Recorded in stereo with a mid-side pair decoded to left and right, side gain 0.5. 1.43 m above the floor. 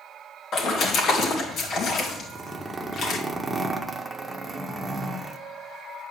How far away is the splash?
About 2.5 m.